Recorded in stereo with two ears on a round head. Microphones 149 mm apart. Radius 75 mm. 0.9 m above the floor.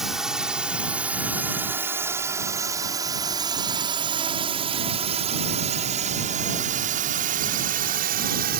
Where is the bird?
I don't hear a bird.